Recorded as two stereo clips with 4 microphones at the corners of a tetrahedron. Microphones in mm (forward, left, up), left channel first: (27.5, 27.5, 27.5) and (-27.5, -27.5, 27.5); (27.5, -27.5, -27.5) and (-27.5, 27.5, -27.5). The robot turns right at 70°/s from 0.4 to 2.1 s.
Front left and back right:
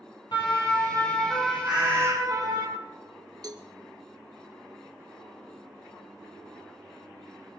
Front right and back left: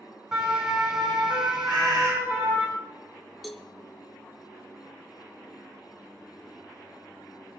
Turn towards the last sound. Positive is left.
turn(degrees=-135)